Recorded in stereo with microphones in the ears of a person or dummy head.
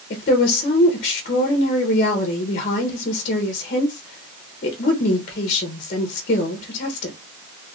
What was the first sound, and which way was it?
A woman speaking, 45° left (ahead or behind).